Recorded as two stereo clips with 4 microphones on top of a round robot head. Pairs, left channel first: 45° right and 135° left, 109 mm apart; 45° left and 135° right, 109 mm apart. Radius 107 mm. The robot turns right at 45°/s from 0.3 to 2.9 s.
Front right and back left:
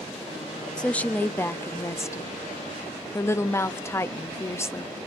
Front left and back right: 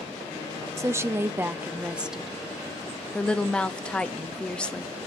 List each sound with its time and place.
0.8 s a woman speaking: 115° right, 0.7 m; by 4.9 s 20° right, 0.7 m